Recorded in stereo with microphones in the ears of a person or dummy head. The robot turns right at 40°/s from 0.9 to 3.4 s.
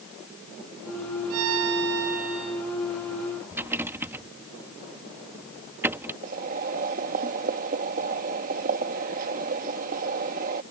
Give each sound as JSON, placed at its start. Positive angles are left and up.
{"t": 1.3, "sound": "a violin", "azimuth_deg": -80}
{"t": 3.5, "sound": "a rattle", "side_deg": -15}
{"t": 6.2, "sound": "boiling", "side_deg": -45}